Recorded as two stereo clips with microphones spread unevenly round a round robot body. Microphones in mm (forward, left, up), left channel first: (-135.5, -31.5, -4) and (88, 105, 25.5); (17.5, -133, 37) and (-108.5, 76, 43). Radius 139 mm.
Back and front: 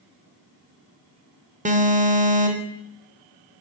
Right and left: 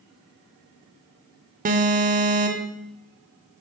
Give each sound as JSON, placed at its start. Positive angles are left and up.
{"t": 1.6, "sound": "an alarm", "azimuth_deg": 85, "distance_m": 0.8}